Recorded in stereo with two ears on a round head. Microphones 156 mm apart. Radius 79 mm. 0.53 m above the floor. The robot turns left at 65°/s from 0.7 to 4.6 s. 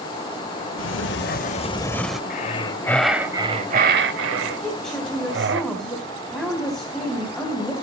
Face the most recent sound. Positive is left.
turn(degrees=5)  # may be behind; listen again after turning